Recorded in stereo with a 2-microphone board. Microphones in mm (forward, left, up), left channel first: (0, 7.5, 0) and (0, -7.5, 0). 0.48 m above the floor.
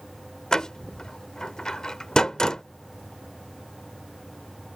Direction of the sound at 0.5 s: 45° left (ahead or behind).